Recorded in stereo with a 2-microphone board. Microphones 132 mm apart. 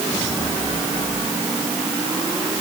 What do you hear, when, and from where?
Only background noise.